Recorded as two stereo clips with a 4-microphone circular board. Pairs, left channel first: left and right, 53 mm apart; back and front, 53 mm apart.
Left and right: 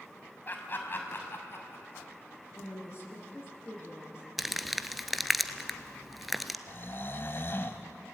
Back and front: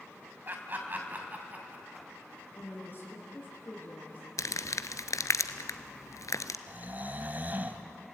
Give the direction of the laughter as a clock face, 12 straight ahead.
11 o'clock.